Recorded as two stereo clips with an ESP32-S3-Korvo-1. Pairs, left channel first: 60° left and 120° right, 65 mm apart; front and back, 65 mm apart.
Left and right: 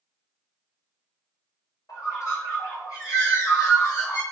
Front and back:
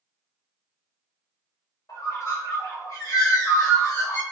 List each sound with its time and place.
1.9 s a bird: 30° left, 1.5 m